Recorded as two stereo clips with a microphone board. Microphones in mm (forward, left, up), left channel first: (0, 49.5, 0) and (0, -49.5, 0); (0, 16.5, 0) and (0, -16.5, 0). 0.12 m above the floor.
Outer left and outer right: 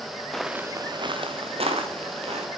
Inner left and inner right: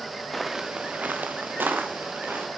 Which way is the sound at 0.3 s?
5° left (ahead or behind).